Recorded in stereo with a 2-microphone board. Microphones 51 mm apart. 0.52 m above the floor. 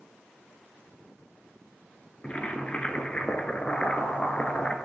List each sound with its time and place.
2.2 s boiling: 25° left (ahead or behind), 1.2 m